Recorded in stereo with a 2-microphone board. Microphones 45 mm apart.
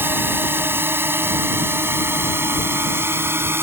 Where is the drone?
60° right (ahead or behind); by 3.6 s 65° right (ahead or behind).